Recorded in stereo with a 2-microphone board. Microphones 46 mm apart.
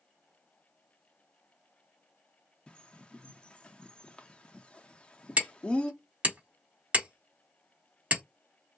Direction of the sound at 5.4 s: 30° right (ahead or behind).